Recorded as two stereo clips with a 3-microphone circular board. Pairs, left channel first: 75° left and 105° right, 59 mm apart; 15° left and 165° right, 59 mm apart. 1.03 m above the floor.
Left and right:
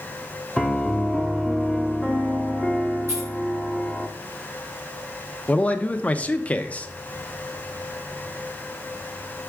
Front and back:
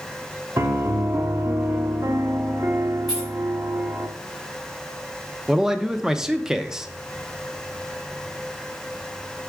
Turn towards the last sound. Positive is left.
turn(degrees=120)